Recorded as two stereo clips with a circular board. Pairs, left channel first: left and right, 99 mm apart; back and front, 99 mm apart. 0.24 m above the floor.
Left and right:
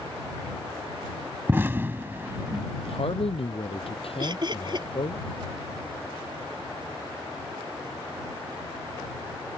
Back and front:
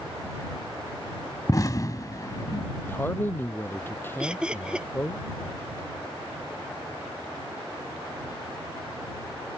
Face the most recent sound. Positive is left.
turn(degrees=-75)